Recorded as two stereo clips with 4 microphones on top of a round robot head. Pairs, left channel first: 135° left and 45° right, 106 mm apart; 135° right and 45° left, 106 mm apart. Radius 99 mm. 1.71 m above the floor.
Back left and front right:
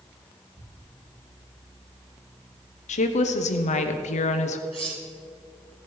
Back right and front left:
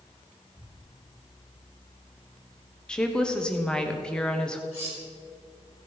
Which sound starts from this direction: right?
Cutlery clinking, at 4.7 s.